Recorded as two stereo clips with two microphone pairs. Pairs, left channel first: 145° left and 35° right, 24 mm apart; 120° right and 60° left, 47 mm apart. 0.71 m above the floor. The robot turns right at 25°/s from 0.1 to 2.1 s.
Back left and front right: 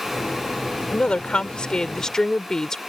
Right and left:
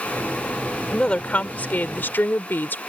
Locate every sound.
0.9 s a woman speaking: 175° left; by 2.8 s 155° right